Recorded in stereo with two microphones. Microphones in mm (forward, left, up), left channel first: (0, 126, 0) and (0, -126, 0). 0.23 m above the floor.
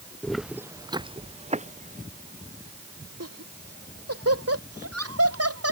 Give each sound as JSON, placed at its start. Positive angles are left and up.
{"t": 0.2, "sound": "footsteps", "side_deg": 5}
{"t": 3.2, "sound": "laughter", "side_deg": -70}